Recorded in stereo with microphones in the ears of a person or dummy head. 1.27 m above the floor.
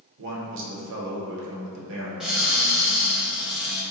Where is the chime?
No chime in this recording.